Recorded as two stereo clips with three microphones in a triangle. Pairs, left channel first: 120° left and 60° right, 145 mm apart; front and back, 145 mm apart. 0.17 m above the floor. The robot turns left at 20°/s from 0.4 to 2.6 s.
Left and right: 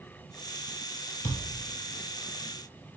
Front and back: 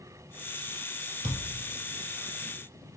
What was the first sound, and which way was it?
A thud, 135° left.